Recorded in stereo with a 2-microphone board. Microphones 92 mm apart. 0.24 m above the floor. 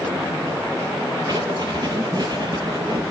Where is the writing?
50° right (ahead or behind), 1.6 m.